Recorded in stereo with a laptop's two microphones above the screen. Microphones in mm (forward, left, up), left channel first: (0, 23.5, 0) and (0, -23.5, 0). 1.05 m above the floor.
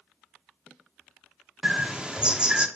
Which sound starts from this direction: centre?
A bird, at 1.6 s.